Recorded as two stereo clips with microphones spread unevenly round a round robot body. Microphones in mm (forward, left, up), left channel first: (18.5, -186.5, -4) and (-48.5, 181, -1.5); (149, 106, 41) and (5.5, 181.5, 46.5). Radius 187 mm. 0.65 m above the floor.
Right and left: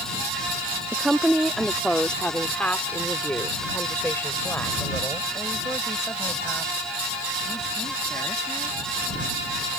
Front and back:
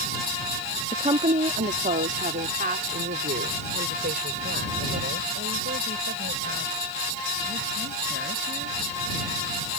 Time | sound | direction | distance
0.9 | a woman speaking | 175° right | ?